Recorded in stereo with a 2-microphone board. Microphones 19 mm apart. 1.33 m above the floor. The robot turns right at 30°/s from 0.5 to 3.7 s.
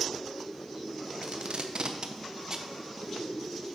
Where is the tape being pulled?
75° right (ahead or behind), 0.7 m; by 2.7 s 30° right (ahead or behind), 0.7 m.